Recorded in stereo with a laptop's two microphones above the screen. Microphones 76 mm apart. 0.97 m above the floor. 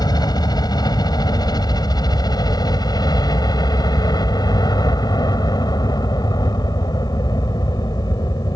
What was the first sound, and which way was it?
A helicopter, 65° left (ahead or behind).